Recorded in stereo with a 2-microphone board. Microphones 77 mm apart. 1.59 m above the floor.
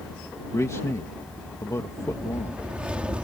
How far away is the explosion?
I don't hear an explosion.